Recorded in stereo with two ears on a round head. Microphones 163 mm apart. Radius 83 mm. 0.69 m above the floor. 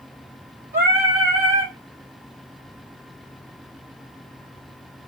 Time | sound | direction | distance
0.7 | singing | 50° right (ahead or behind) | 2 m